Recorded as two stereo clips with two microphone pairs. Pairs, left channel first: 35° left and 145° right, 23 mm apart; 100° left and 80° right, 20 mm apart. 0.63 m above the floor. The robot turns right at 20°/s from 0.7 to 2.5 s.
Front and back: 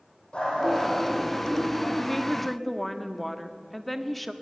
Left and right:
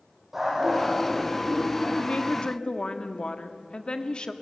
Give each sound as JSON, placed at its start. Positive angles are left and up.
{"t": 0.3, "sound": "a dog barking", "azimuth_deg": -5, "distance_m": 7.5}
{"t": 2.0, "sound": "a woman speaking", "azimuth_deg": 100, "distance_m": 1.3}